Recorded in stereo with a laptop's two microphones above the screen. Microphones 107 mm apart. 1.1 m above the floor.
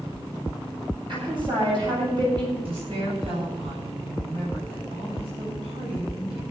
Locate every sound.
1.1 s a woman speaking: 50° right (ahead or behind), 7.5 m
2.6 s a woman speaking: 60° right (ahead or behind), 7 m